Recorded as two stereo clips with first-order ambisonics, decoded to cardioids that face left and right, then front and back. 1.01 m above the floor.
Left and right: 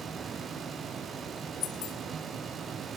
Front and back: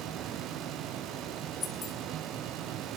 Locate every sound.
1.6 s keys jangling: 70° left, 3.5 m